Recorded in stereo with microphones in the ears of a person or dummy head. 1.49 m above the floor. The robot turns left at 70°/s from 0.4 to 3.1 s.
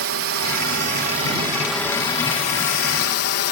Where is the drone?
85° right; by 3.5 s 85° left.